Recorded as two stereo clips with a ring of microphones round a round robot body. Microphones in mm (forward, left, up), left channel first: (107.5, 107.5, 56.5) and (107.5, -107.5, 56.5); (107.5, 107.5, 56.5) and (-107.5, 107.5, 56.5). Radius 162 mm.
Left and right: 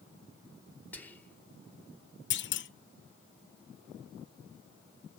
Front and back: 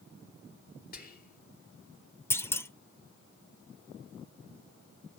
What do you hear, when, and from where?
0.9 s whispering: 10° left, 1.4 m
2.3 s a clunk: 80° left, 0.6 m